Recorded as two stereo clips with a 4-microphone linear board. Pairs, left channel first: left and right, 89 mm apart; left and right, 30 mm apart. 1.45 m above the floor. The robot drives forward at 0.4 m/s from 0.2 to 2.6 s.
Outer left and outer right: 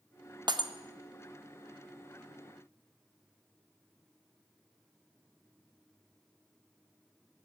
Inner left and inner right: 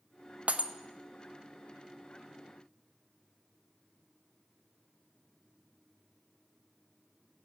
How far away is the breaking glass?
About 0.9 m.